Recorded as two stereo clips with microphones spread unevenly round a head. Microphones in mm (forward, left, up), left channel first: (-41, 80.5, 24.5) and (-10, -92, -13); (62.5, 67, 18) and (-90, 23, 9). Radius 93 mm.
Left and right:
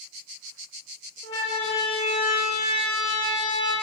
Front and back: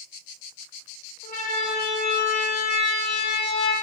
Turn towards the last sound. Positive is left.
turn(degrees=30)